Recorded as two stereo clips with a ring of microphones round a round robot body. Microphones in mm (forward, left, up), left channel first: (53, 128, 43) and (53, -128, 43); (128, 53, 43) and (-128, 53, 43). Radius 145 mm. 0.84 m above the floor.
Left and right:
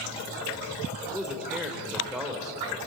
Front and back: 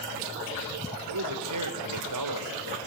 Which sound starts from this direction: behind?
A man speaking, at 1.1 s.